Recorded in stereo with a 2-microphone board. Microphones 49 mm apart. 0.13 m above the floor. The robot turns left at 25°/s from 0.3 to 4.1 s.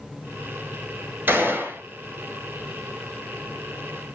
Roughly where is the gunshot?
Right.